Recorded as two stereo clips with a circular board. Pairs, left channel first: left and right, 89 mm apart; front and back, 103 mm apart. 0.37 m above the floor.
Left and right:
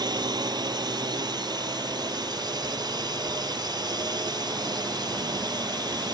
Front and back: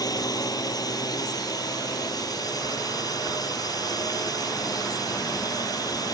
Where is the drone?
50° right.